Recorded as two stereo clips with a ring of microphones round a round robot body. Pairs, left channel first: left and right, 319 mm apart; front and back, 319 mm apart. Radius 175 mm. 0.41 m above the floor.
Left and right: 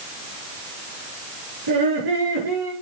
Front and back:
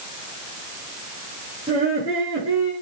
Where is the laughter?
100° right, 7.5 m.